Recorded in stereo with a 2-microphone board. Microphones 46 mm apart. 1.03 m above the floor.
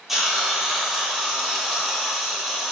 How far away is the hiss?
About 0.8 m.